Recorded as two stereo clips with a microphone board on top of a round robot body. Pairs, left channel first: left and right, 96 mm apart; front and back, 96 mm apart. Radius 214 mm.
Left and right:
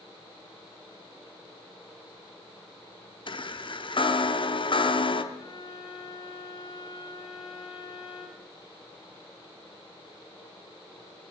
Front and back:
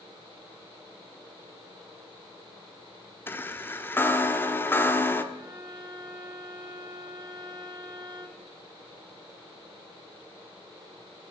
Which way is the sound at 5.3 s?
140° left.